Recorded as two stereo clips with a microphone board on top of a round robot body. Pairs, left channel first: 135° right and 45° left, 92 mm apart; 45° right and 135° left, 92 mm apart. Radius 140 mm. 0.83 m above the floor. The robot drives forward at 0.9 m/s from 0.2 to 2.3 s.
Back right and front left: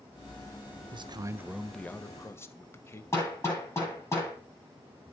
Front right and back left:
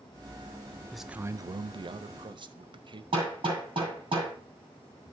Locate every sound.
0.9 s a man speaking: 40° left, 0.6 m; by 3.0 s 160° left, 1.0 m
3.1 s hammering: 165° left, 8.5 m